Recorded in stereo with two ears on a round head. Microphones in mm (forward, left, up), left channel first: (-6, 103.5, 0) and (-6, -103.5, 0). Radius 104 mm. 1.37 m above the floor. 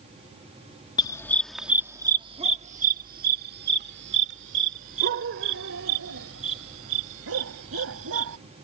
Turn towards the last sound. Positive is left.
turn(degrees=-65)  # may be behind; listen again after turning